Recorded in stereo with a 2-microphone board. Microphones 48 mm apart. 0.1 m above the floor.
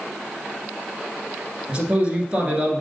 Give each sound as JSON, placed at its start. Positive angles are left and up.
{"t": 1.7, "sound": "a man speaking", "side_deg": -25, "distance_m": 1.4}